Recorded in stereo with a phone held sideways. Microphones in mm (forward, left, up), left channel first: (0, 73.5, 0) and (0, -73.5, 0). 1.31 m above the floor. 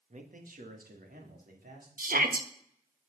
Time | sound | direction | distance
0.1 | a man speaking | 55° right (ahead or behind) | 1.5 m
2.0 | a shout | 80° right | 1.5 m